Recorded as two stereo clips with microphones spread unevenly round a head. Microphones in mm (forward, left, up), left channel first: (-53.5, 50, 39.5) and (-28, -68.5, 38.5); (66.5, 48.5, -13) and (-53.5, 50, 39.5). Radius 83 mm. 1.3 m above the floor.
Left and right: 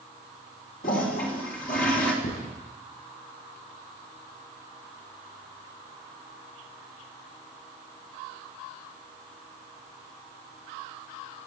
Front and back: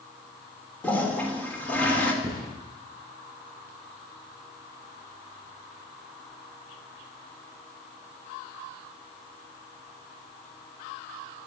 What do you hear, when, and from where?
0.8 s a toilet flushing: 80° left, 3.5 m
2.2 s a thud: 120° left, 8.5 m